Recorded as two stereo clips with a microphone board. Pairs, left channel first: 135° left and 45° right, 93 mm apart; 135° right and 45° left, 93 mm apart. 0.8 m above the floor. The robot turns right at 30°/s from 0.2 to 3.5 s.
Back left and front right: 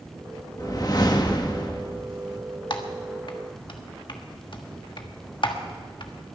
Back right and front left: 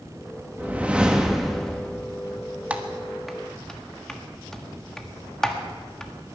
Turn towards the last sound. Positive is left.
turn(degrees=140)